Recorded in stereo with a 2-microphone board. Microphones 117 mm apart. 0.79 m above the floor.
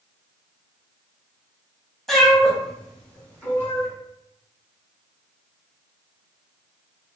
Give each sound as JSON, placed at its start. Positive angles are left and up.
{"t": 2.1, "sound": "a cat meowing", "side_deg": 5, "distance_m": 0.9}